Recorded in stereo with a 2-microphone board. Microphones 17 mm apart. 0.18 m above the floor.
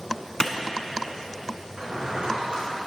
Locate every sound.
0.4 s a clap: 45° left (ahead or behind), 1.1 m
1.8 s a drawer: 75° right (ahead or behind), 5 m